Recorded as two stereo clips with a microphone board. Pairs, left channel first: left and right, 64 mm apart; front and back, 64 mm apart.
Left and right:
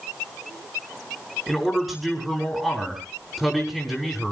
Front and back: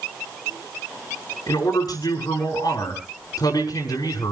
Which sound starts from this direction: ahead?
A man speaking, at 1.5 s.